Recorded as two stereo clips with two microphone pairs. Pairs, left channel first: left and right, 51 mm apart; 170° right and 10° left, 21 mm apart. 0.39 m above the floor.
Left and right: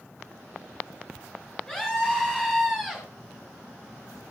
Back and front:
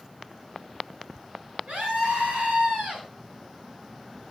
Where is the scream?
15° left, 5.5 m; by 3.0 s 5° left, 5.5 m.